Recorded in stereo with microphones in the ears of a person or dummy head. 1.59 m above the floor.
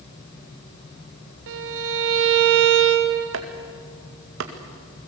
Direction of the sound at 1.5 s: 70° right (ahead or behind).